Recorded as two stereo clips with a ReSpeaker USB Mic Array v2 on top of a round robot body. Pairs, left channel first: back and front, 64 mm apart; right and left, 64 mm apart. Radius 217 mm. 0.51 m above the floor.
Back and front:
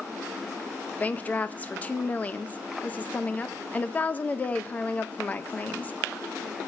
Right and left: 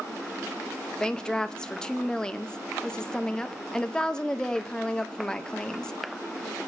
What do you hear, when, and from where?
1.0 s a woman speaking: 155° right, 0.7 m